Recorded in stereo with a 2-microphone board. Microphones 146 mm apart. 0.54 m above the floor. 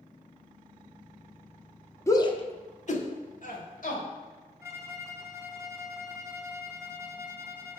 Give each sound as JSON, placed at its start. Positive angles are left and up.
{"t": 2.1, "sound": "a shout", "side_deg": 20, "distance_m": 0.7}
{"t": 4.6, "sound": "a violin", "side_deg": -20, "distance_m": 0.8}